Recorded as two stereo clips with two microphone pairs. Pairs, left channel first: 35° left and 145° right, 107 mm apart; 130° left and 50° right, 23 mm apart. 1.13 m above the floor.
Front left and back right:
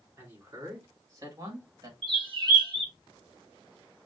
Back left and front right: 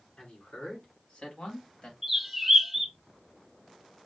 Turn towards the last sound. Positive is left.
turn(degrees=-130)